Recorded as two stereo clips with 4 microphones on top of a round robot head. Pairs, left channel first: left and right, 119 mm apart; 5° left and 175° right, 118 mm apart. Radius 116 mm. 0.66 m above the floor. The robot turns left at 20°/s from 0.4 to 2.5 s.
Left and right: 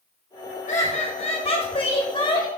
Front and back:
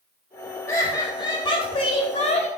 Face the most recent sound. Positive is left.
turn(degrees=40)